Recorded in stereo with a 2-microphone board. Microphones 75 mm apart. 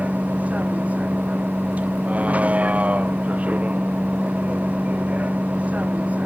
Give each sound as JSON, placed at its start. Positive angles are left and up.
{"t": 0.0, "sound": "a vehicle", "side_deg": -20}